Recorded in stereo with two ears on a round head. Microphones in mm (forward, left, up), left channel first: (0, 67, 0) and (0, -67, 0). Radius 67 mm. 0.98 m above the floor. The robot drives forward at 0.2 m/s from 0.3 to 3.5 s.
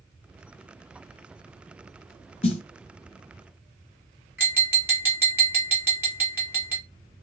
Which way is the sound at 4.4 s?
10° right (ahead or behind).